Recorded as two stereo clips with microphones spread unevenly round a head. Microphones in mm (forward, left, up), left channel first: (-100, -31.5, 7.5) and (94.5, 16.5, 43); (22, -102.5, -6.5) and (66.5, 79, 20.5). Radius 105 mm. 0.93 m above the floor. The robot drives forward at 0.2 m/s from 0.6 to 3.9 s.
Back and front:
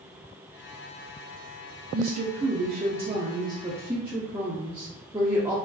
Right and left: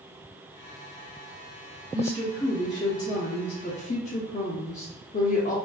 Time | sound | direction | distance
1.9 | a woman speaking | 35° right | 0.7 m